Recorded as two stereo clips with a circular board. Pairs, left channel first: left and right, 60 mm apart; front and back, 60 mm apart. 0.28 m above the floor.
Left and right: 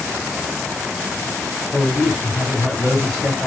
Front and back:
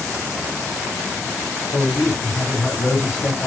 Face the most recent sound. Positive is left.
turn(degrees=0)